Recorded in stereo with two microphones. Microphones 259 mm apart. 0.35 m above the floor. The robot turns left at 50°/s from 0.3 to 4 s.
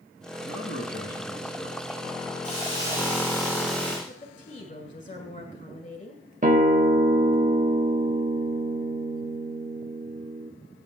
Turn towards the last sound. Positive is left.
turn(degrees=-30)  # may be behind; listen again after turning